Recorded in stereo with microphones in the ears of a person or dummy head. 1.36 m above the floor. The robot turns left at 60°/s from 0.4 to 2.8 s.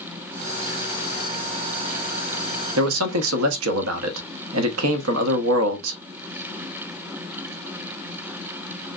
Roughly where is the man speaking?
Right.